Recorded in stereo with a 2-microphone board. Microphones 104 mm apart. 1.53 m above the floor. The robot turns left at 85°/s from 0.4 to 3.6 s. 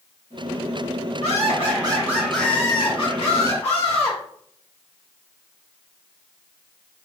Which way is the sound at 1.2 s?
85° right.